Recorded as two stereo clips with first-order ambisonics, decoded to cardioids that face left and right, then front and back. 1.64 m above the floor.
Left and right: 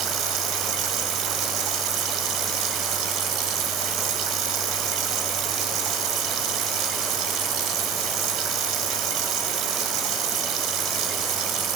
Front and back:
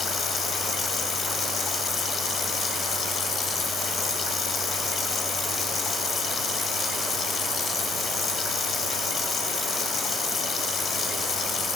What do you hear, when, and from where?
0.0 s running water: 60° right, 3 m